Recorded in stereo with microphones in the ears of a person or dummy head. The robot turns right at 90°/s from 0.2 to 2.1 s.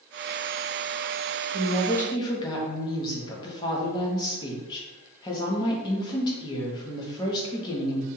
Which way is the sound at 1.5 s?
20° right.